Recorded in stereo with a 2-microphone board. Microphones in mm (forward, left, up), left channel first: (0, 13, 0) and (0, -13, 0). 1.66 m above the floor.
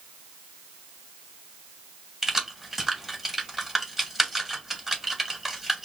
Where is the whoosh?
I don't hear a whoosh.